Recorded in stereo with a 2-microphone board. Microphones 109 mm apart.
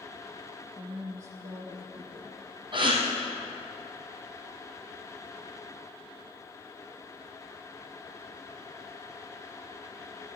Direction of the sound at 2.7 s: 50° right (ahead or behind).